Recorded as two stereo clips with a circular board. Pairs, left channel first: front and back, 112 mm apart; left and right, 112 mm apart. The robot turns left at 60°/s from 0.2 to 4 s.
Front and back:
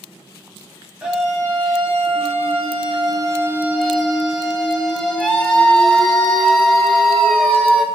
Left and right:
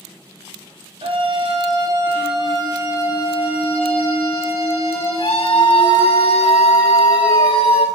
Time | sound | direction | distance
1.0 | a scream | 100° right | 0.8 m